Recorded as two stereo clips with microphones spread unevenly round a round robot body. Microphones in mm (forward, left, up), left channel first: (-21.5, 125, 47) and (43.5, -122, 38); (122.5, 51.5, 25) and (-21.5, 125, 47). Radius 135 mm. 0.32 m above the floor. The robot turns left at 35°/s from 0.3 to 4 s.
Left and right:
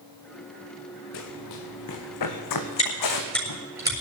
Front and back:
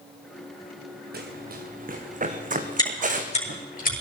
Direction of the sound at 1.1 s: 130° left.